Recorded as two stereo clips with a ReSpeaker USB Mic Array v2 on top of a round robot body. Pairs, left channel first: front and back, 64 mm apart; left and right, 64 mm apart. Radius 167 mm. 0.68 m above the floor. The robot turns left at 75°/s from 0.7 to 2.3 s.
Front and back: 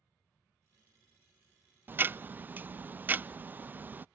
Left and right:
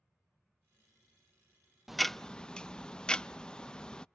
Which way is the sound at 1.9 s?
170° right.